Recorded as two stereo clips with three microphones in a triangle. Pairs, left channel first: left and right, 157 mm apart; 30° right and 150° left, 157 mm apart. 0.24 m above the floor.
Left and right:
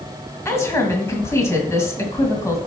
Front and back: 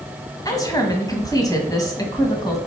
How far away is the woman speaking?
About 1.9 m.